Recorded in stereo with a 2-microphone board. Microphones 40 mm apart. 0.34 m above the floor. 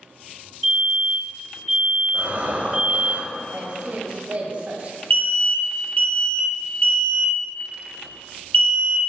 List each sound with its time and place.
0.6 s a fire alarm: 5° right (ahead or behind), 2.0 m
2.1 s breathing: 45° right (ahead or behind), 0.8 m
3.5 s a woman speaking: 35° right (ahead or behind), 1.1 m
5.1 s an alarm: 35° left (ahead or behind), 0.7 m